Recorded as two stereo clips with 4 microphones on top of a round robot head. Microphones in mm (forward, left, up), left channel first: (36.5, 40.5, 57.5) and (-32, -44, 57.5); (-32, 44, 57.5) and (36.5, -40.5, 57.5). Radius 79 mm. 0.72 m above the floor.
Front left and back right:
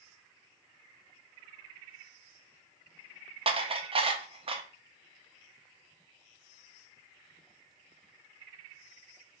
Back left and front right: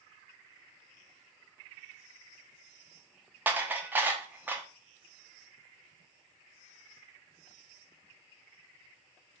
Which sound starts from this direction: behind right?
Dishes clattering, at 3.5 s.